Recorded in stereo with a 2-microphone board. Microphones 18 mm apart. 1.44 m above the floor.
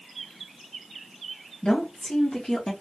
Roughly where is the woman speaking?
Left.